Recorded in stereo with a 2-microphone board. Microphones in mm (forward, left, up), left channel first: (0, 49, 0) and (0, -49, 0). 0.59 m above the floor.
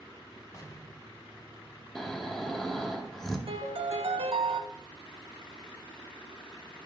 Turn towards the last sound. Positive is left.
turn(degrees=-70)  # may be behind; listen again after turning